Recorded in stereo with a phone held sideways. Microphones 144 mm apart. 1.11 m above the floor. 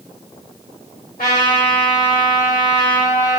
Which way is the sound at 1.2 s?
80° left.